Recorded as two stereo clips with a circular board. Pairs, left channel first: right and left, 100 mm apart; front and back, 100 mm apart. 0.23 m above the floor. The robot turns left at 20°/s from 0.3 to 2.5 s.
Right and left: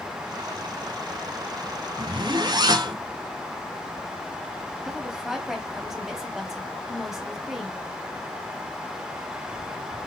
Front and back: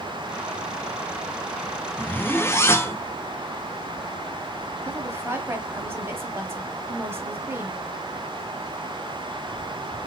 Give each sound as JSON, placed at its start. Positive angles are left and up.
{"t": 2.0, "sound": "a zipper", "azimuth_deg": 65, "distance_m": 0.7}
{"t": 4.8, "sound": "a woman speaking", "azimuth_deg": 170, "distance_m": 1.0}